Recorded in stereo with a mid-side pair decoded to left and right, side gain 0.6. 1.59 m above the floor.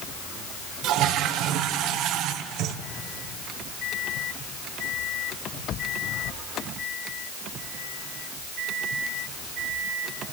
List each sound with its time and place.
0.8 s a toilet flushing: 65° right, 1.1 m